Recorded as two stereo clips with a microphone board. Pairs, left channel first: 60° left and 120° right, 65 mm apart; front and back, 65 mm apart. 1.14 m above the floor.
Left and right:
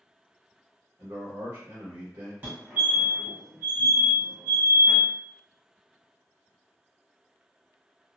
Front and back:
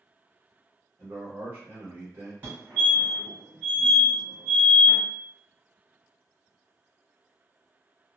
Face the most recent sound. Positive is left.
turn(degrees=-140)